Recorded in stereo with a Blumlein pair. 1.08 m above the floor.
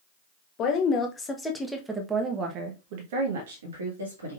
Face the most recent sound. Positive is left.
turn(degrees=-75)